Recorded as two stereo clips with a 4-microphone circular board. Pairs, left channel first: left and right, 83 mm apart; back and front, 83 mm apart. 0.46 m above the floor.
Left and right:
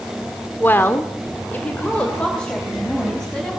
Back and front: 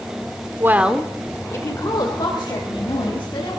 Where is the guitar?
No guitar in this recording.